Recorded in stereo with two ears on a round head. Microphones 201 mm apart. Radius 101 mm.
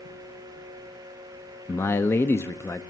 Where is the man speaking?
10° left (ahead or behind), 0.7 m.